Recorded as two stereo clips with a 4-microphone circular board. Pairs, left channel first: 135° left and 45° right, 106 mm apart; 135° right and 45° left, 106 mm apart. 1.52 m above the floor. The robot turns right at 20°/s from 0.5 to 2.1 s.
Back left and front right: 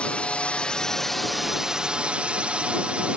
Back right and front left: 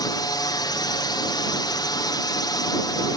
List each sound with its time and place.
0.0 s a drone: 150° right; by 3.2 s 120° right